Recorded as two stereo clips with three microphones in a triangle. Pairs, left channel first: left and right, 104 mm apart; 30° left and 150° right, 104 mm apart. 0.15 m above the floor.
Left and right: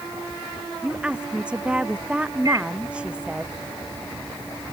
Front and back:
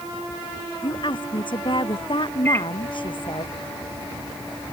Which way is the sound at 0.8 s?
10° right.